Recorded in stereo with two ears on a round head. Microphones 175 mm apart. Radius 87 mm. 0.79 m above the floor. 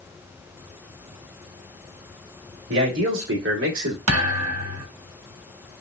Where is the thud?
80° right, 1.2 m.